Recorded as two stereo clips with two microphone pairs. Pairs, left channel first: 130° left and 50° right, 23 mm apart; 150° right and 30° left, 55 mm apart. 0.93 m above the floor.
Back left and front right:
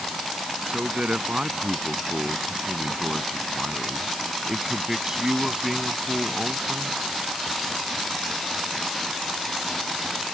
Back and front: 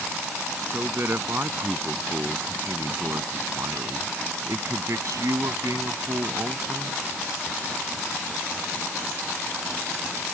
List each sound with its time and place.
0.7 s a man speaking: 15° right; by 7.0 s 35° left